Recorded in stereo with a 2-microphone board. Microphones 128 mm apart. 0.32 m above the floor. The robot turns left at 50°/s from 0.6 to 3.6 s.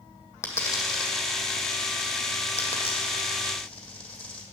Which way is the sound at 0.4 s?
20° left (ahead or behind).